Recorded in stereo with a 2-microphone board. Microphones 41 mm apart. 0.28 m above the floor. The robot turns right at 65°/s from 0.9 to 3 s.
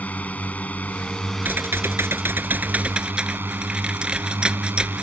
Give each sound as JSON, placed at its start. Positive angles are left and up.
{"t": 0.0, "sound": "a drone", "azimuth_deg": 135}
{"t": 1.4, "sound": "typing on a keyboard", "azimuth_deg": -125}